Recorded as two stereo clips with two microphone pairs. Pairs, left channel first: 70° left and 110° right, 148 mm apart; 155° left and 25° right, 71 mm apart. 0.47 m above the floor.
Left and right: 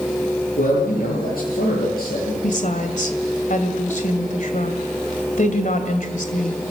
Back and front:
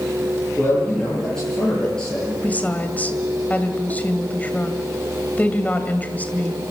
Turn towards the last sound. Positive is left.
turn(degrees=90)